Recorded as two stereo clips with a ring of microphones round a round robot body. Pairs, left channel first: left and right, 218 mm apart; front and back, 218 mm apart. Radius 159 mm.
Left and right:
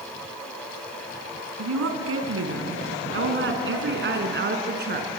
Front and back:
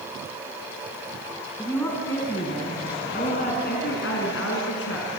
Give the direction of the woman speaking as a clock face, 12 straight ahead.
3 o'clock.